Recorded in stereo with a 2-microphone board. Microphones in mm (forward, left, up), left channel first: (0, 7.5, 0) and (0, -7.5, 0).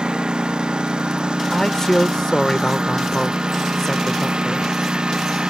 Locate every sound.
0.0 s a lawn mower: 75° right (ahead or behind); by 5.5 s 70° right (ahead or behind)
1.5 s a man speaking: 35° left (ahead or behind)